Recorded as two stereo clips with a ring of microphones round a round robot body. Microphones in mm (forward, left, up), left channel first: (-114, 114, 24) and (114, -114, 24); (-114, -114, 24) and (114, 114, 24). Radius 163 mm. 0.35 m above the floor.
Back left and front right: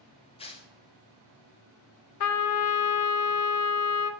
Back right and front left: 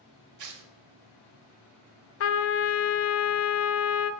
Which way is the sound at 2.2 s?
175° left.